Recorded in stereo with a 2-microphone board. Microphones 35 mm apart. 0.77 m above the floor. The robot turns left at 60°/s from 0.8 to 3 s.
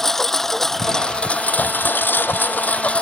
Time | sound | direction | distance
0.0 | a lawn mower | 170° left | ?